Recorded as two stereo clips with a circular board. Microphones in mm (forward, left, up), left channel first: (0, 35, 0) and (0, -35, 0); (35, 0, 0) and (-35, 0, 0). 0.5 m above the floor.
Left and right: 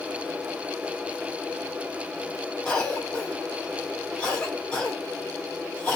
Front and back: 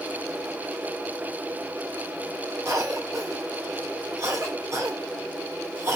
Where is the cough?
165° left, 1.8 m.